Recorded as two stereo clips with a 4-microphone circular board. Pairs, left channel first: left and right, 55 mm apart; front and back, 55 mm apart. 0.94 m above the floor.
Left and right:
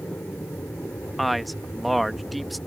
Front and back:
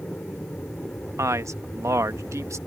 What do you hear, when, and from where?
0.0 s an aircraft: 50° left
1.2 s a man speaking: straight behind